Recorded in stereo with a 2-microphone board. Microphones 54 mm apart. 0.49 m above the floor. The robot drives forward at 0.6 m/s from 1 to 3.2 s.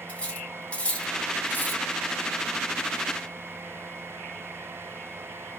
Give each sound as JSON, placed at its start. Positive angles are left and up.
{"t": 0.1, "sound": "cutlery clinking", "side_deg": 25, "distance_m": 1.0}